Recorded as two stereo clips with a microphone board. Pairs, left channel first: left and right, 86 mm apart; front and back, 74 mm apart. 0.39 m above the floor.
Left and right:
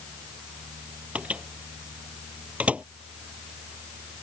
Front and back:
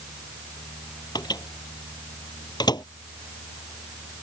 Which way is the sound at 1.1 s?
15° right.